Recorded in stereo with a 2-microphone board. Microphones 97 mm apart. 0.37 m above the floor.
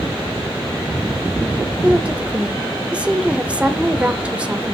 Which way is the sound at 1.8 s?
10° right (ahead or behind).